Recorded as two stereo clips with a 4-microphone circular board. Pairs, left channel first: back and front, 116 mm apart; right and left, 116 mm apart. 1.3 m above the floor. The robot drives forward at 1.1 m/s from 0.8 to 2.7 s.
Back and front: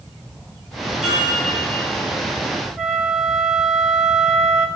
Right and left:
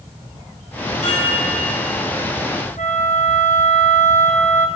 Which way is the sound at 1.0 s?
85° right.